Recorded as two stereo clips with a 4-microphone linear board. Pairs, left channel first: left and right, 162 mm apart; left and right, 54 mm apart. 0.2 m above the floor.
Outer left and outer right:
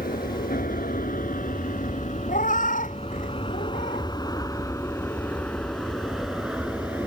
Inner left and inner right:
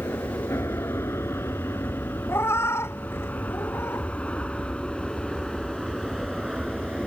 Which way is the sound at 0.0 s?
65° left (ahead or behind).